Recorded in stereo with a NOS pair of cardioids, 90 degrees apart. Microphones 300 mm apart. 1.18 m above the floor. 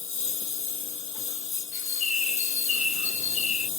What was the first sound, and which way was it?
A lawn mower, 45° left.